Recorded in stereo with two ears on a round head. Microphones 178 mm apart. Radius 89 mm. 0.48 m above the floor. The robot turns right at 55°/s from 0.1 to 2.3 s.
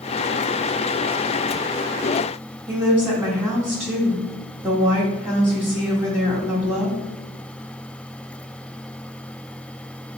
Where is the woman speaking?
10° right (ahead or behind), 0.7 m.